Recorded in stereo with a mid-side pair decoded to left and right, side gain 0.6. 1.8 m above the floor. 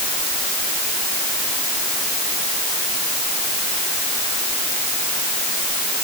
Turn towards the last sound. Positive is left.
No sound to turn to.